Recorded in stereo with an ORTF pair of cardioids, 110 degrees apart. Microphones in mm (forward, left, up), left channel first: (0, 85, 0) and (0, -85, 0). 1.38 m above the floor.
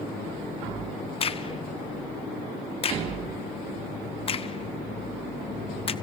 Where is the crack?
35° left, 0.9 m.